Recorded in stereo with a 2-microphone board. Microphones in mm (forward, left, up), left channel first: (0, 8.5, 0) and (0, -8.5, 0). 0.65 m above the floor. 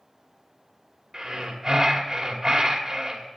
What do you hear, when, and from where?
1.1 s breathing: 20° right (ahead or behind), 2.5 m